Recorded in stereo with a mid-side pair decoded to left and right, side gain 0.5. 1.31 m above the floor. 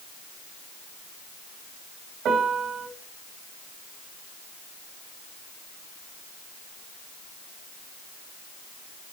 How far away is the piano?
About 3 m.